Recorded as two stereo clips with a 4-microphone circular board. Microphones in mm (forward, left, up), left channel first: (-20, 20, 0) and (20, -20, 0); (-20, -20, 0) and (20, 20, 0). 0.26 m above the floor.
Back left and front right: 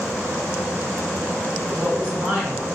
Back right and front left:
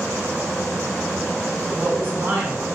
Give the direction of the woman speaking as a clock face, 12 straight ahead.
11 o'clock.